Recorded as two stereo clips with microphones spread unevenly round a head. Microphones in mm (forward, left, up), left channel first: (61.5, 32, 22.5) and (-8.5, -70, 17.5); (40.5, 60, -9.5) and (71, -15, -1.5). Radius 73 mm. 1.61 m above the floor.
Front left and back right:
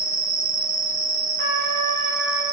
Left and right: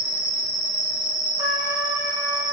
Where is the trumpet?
115° right, 1.6 m.